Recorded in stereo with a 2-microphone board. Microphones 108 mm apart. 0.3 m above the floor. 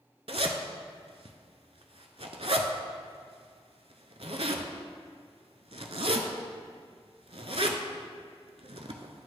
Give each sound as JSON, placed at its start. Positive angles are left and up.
{"t": 0.3, "sound": "a zipper", "side_deg": -70, "distance_m": 0.6}